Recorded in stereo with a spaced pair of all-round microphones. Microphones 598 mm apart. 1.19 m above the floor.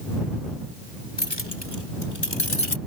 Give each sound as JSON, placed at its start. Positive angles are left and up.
{"t": 1.2, "sound": "keys jangling", "side_deg": 15}